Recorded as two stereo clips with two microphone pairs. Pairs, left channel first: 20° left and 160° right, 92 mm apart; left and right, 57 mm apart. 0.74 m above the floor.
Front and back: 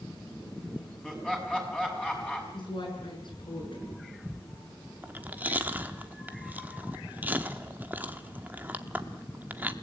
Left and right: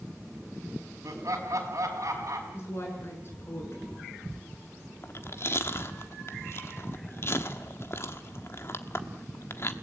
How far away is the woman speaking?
About 7.5 m.